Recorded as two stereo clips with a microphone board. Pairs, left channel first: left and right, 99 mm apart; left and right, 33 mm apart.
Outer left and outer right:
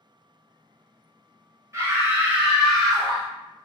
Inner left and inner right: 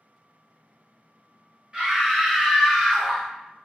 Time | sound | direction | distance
1.7 | a scream | 30° right (ahead or behind) | 1.2 m